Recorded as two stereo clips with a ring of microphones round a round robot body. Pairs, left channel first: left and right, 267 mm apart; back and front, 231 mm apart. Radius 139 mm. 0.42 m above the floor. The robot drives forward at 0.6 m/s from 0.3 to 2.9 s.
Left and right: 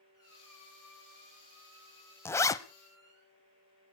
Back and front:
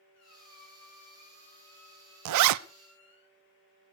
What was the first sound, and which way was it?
A squeak, 170° left.